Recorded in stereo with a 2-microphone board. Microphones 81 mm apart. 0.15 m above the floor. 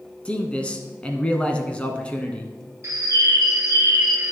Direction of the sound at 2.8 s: 40° right (ahead or behind).